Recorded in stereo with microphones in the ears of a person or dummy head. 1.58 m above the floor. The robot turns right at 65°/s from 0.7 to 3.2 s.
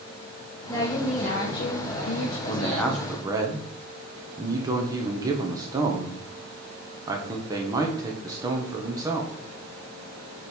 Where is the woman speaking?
15° left, 1.4 m; by 2.4 s 125° left, 1.4 m.